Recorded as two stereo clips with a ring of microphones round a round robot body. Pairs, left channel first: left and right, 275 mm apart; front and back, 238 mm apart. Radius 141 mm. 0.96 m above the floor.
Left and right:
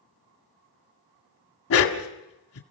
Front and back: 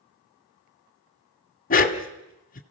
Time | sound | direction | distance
1.7 | a dog barking | 50° left | 1.7 m